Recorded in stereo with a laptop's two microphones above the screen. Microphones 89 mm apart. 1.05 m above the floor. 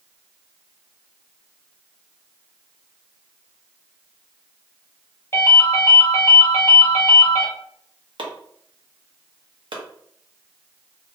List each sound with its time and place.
5.3 s a ringtone: 30° left (ahead or behind), 0.8 m
8.2 s chopping: 65° right (ahead or behind), 0.8 m